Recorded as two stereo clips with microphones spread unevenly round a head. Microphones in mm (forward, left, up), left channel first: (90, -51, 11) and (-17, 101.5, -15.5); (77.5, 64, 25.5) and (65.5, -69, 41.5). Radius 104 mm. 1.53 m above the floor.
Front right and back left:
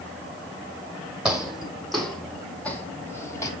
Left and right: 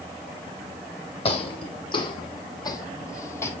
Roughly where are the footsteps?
Ahead left.